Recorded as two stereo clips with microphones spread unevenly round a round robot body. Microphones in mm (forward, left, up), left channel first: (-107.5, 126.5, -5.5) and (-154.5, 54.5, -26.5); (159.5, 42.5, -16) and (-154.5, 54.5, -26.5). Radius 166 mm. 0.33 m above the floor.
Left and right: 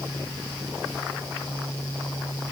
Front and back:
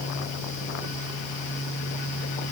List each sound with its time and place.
Only background noise.